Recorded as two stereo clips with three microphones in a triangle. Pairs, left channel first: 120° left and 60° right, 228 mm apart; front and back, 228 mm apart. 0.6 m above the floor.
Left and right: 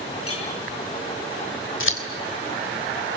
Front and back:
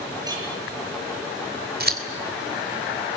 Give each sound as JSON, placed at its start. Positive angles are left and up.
{"t": 0.2, "sound": "a clink", "azimuth_deg": 105, "distance_m": 8.5}
{"t": 1.8, "sound": "scissors", "azimuth_deg": 140, "distance_m": 3.0}